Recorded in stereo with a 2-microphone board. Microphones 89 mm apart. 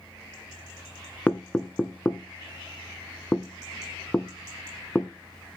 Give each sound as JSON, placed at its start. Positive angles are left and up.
{"t": 1.3, "sound": "knocking", "side_deg": 15, "distance_m": 0.8}